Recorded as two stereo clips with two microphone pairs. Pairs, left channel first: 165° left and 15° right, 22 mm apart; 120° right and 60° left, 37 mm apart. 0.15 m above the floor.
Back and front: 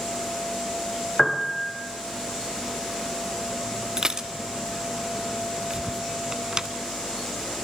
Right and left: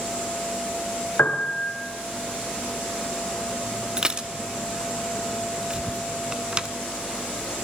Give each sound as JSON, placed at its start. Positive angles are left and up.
{"t": 1.2, "sound": "a piano", "azimuth_deg": -110, "distance_m": 2.0}
{"t": 4.0, "sound": "dishes clattering", "azimuth_deg": 20, "distance_m": 1.0}
{"t": 5.7, "sound": "whispering", "azimuth_deg": -95, "distance_m": 2.0}